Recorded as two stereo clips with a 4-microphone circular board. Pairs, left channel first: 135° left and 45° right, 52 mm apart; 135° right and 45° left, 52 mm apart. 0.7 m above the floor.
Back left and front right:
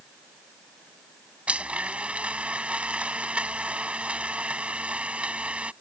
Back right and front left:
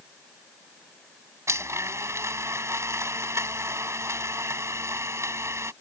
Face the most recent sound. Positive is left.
turn(degrees=20)